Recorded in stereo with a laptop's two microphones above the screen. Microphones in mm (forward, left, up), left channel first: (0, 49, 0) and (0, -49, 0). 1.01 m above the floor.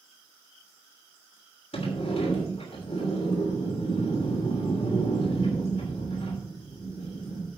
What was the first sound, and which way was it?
A sliding door, 70° left (ahead or behind).